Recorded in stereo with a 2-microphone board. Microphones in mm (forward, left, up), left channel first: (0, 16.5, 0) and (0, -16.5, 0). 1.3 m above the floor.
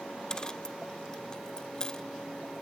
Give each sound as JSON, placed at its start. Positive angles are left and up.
{"t": 0.3, "sound": "a dropped coin", "side_deg": 20, "distance_m": 0.6}